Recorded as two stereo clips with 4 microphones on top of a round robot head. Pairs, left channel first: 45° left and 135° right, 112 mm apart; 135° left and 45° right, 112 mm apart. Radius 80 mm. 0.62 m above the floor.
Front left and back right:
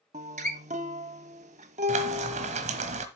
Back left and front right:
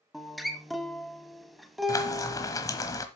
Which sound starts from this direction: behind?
Frying, at 1.9 s.